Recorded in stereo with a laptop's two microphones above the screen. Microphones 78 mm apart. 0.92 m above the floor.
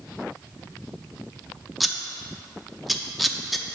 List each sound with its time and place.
1.8 s scissors: centre (ahead or behind), 0.6 m